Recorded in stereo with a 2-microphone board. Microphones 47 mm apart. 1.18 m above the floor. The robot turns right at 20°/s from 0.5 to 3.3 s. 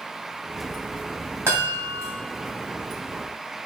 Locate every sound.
1.5 s a chime: 60° right (ahead or behind), 1.9 m; by 2.1 s 70° right (ahead or behind), 1.9 m